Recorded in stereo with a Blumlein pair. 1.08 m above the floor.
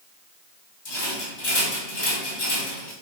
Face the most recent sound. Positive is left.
turn(degrees=50)